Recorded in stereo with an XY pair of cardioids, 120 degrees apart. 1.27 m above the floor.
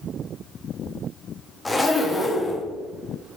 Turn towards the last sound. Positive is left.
turn(degrees=10)